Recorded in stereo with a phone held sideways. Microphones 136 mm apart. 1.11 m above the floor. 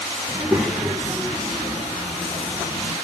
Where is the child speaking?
15° right (ahead or behind), 1.2 m; by 2.9 s 40° left (ahead or behind), 3 m.